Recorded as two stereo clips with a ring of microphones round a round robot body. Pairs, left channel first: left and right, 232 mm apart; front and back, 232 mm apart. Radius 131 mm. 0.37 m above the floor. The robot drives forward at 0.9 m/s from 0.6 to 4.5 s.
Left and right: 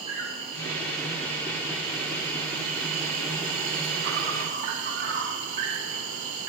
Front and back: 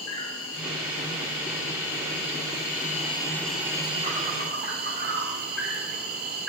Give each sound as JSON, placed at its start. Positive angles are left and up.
{"t": 0.0, "sound": "an insect", "azimuth_deg": -20, "distance_m": 3.0}